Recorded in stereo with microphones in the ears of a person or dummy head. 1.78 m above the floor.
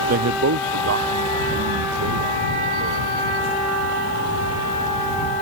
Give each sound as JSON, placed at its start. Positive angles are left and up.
{"t": 0.1, "sound": "a man speaking", "side_deg": -50}